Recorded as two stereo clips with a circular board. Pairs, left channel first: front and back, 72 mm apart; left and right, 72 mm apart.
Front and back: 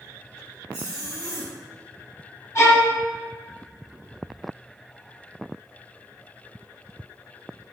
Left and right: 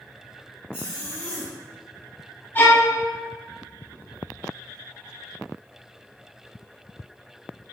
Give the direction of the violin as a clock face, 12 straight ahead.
11 o'clock.